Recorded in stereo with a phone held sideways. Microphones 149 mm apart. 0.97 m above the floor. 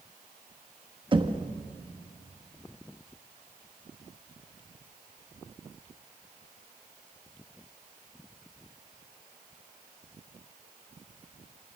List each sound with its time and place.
1.1 s knocking: 35° right (ahead or behind), 1.0 m